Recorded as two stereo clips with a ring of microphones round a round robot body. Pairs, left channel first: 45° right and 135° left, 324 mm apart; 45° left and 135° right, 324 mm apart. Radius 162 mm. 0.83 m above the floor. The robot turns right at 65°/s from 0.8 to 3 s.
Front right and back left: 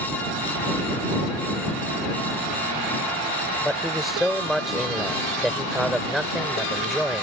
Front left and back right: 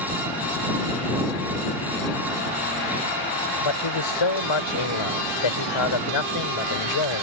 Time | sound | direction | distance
3.6 | a man speaking | 45° left | ?